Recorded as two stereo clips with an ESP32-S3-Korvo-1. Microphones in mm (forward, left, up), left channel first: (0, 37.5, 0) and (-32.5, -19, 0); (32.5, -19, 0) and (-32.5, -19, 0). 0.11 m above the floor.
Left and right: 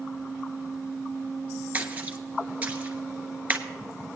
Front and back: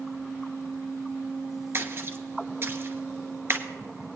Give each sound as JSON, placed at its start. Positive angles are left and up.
{"t": 1.7, "sound": "a splash", "azimuth_deg": -170, "distance_m": 1.0}